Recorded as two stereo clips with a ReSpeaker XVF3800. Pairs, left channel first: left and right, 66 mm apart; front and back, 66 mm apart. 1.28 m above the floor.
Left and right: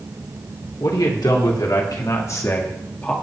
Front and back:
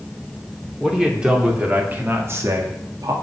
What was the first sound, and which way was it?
A man speaking, 95° left.